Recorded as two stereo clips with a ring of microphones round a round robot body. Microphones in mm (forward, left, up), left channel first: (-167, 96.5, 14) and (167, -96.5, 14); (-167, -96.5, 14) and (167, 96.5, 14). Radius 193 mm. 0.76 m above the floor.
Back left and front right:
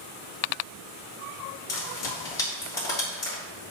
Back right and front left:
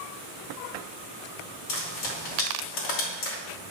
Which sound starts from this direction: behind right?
Frying, at 1.7 s.